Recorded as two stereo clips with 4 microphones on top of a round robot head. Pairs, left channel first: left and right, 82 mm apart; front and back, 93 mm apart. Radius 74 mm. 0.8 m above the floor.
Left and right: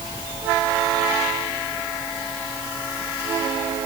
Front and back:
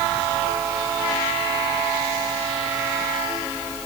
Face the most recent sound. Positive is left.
No sound to turn to.